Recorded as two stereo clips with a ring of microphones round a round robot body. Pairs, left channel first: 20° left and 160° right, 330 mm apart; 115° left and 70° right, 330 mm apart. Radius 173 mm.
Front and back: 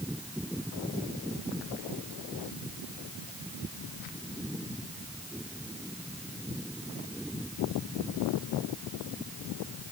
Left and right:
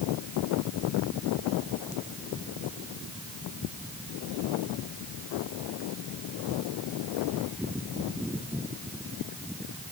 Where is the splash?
No splash in this recording.